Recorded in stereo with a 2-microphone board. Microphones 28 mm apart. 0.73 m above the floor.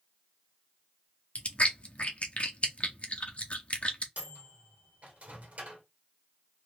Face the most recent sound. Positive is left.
turn(degrees=-55)  # may be behind; listen again after turning